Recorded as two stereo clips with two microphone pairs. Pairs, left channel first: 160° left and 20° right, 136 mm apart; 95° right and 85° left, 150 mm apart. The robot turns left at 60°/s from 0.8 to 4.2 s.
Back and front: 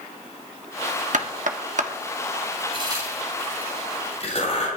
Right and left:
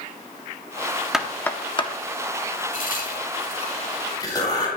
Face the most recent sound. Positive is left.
turn(degrees=-160)